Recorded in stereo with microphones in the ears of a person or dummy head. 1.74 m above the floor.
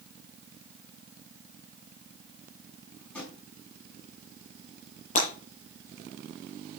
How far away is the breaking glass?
About 7.5 m.